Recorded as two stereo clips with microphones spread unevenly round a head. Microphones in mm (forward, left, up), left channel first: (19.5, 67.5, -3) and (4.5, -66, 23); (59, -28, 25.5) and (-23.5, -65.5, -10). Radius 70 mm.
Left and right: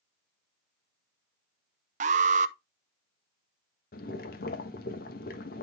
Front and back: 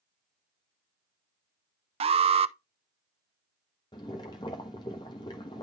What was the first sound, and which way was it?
An alarm, 135° right.